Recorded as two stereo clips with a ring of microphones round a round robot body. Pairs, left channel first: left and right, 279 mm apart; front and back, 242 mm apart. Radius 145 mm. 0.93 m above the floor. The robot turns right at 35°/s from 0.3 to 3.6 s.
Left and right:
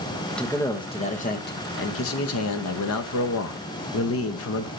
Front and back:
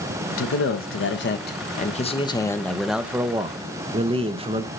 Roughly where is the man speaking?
Ahead.